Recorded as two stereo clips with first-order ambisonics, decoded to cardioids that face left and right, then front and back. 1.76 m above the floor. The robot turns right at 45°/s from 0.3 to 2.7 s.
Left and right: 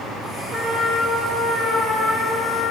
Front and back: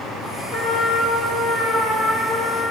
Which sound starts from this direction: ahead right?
A trumpet, at 0.5 s.